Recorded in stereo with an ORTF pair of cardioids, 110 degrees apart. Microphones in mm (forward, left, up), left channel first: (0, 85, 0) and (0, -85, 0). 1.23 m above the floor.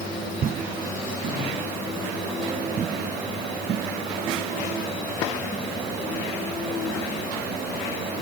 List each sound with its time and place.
Only background noise.